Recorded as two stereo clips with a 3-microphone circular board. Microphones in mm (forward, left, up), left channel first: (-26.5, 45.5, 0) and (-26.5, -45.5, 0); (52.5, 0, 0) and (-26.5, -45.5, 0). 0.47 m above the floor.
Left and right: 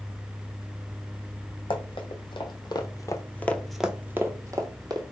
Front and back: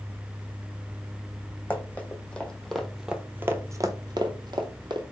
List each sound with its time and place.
1.7 s running footsteps: 100° left, 1.2 m; by 5.0 s 125° right, 1.0 m